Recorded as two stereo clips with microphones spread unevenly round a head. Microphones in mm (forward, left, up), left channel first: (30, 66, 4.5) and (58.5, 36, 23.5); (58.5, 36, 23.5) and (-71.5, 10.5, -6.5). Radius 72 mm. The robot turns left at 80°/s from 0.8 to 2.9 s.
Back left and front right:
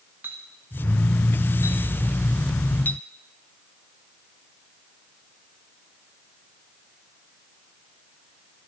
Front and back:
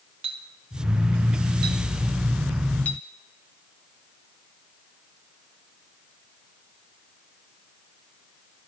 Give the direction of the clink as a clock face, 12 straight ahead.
4 o'clock.